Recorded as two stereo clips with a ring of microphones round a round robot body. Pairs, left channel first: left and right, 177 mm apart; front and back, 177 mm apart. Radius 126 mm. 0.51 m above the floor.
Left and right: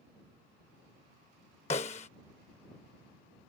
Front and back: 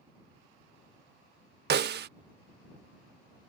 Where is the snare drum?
155° left.